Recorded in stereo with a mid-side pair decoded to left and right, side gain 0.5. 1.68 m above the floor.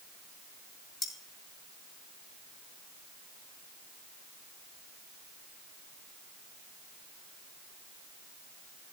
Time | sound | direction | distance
1.0 | cutlery clinking | 45° left | 2.5 m